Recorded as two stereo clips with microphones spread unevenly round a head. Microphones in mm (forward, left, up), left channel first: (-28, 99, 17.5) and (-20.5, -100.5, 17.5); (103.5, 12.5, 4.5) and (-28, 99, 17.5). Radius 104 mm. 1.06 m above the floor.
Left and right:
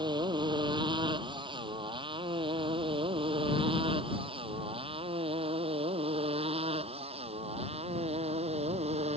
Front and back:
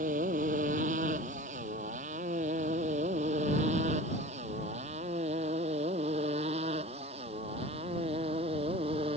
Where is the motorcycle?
155° right; by 9.2 s 150° right.